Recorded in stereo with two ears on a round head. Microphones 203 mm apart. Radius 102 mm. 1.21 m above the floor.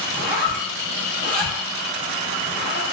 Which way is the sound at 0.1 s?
40° right (ahead or behind).